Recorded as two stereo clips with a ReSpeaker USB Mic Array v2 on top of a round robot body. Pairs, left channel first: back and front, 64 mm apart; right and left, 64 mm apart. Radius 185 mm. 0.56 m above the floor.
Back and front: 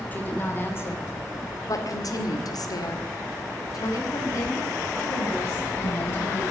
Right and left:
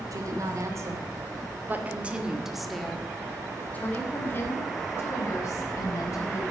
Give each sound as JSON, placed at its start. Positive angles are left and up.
{"t": 0.1, "sound": "a woman speaking", "azimuth_deg": 120, "distance_m": 3.0}